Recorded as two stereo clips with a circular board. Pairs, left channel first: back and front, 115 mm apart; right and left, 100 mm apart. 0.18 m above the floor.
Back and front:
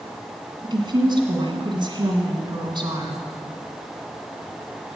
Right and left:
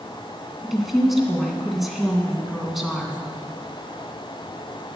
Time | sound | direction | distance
0.6 | a woman speaking | 5° left | 2.0 m